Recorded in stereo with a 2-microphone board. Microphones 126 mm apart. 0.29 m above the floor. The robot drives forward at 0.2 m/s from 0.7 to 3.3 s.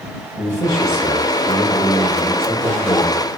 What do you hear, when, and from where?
0.4 s a man speaking: 15° left (ahead or behind), 1.0 m